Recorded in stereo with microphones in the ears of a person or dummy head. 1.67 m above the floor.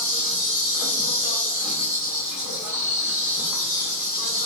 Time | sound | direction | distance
0.0 | an insect | centre (ahead or behind) | 1.3 m